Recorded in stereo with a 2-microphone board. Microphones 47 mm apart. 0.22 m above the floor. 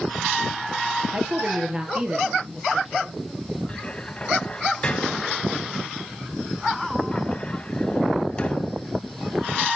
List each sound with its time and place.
1.1 s a woman speaking: 25° right (ahead or behind), 4.5 m; by 3.2 s 15° right (ahead or behind), 4 m
3.7 s a cupboard door: 25° left (ahead or behind), 0.8 m